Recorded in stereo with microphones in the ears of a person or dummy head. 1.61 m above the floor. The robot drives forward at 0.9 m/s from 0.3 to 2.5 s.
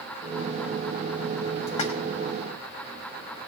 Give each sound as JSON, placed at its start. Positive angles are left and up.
{"t": 1.7, "sound": "a splash", "side_deg": 45, "distance_m": 1.8}